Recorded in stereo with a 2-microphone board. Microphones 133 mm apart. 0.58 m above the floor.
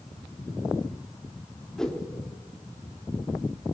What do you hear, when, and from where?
1.8 s a whoosh: 5° left (ahead or behind), 1.2 m